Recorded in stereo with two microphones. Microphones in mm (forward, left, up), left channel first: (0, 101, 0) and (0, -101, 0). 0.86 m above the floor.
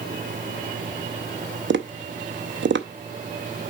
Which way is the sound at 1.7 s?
65° right (ahead or behind).